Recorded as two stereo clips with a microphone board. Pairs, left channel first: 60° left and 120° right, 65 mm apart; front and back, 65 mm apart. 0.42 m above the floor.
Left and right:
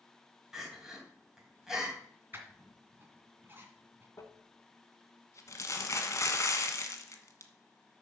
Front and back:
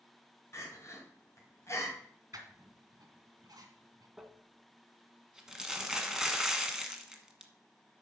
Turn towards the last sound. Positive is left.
turn(degrees=100)